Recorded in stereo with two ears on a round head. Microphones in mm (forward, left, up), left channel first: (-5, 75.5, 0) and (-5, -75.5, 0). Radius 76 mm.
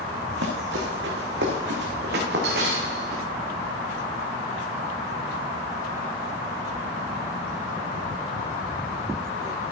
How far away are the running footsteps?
About 3 m.